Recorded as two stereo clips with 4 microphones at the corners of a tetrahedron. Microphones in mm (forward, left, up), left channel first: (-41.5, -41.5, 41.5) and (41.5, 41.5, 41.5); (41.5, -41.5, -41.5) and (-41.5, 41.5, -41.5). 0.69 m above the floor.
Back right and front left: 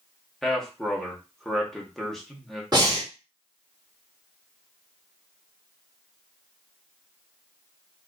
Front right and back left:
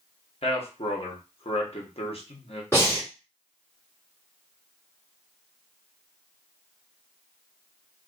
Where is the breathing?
15° left, 1.5 m.